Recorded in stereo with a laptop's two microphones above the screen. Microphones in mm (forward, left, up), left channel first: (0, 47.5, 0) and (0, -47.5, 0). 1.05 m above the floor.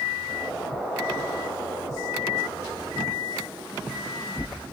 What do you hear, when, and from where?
0.3 s an explosion: 5° right (ahead or behind), 3.5 m